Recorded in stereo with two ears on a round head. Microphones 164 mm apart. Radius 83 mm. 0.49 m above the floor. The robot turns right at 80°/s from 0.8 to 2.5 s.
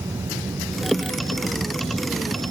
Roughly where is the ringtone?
No ringtone in this recording.